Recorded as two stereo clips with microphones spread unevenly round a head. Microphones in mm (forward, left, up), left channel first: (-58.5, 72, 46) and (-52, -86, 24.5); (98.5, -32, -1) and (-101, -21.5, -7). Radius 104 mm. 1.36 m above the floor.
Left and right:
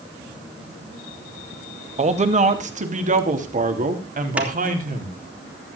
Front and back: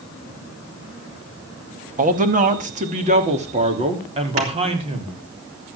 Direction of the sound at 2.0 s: 135° right.